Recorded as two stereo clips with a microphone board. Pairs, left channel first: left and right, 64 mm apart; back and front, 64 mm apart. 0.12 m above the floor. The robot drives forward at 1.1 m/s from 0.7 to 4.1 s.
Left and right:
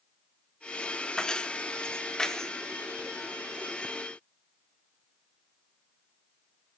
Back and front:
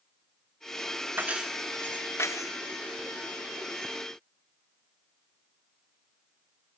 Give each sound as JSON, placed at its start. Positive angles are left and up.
{"t": 1.2, "sound": "keys jangling", "azimuth_deg": 25, "distance_m": 0.9}